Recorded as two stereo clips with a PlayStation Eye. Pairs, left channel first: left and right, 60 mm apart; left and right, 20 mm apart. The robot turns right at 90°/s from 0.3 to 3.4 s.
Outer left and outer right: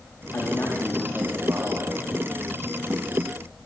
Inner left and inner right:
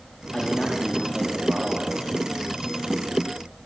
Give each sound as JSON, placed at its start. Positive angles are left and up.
{"t": 0.3, "sound": "a man speaking", "azimuth_deg": 120, "distance_m": 4.0}